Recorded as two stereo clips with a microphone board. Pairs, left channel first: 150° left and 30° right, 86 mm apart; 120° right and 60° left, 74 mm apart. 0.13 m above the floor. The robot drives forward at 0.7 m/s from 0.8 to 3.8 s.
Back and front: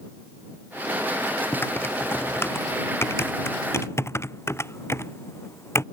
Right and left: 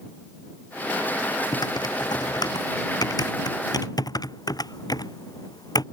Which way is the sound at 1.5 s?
145° right.